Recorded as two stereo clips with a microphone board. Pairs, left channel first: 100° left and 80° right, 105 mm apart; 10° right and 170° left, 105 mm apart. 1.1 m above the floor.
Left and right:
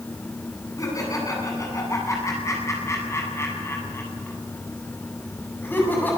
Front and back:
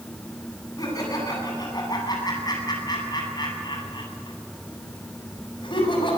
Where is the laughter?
45° left, 9 m; by 6.2 s 30° left, 7 m.